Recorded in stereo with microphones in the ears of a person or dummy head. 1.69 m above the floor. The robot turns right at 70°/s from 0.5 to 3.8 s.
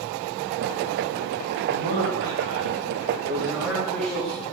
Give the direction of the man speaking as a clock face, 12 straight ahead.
5 o'clock.